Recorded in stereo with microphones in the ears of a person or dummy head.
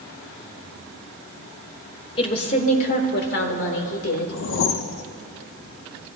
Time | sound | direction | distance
2.2 | a woman speaking | 40° left (ahead or behind) | 1.9 m
4.3 | a whoosh | 65° left (ahead or behind) | 0.6 m